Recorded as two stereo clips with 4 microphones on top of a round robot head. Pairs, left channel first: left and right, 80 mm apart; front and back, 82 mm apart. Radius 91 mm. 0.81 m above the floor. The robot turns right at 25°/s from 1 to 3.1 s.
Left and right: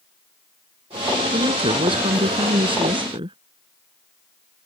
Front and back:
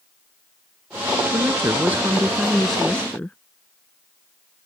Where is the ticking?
I don't hear ticking.